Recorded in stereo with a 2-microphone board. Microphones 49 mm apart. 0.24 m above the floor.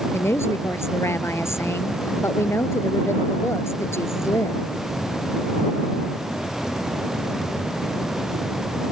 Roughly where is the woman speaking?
Left.